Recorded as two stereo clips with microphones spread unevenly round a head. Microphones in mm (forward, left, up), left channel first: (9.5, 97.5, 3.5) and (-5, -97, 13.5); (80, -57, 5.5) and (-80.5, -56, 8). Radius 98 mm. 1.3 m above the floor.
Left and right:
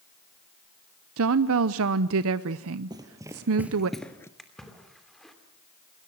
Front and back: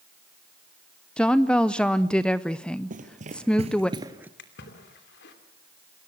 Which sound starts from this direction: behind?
Running footsteps, at 2.9 s.